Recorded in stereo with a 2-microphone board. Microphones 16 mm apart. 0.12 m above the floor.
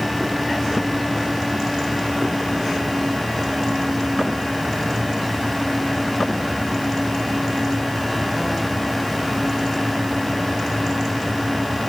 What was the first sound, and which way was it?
Only background noise.